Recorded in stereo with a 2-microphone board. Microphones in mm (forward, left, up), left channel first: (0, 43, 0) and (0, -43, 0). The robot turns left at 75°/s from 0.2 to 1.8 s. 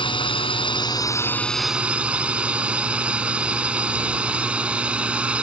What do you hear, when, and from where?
0.0 s a drone: 105° left; by 5.4 s 15° right